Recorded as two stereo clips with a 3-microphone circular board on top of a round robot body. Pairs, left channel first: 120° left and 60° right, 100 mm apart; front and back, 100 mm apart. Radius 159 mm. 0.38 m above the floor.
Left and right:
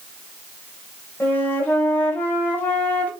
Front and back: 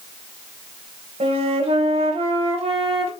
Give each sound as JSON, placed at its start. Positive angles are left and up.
{"t": 1.2, "sound": "a flute", "azimuth_deg": -165, "distance_m": 3.5}